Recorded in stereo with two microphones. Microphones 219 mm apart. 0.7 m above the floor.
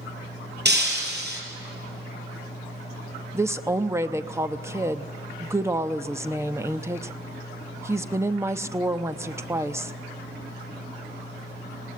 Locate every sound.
0.7 s breaking glass: 50° right (ahead or behind), 3.5 m
3.3 s a woman speaking: 10° right (ahead or behind), 0.7 m